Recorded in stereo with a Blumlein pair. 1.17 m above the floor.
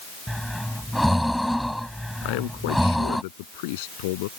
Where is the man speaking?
50° left.